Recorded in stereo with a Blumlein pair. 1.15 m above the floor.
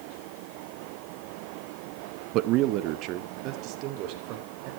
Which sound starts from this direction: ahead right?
A man speaking, at 2.3 s.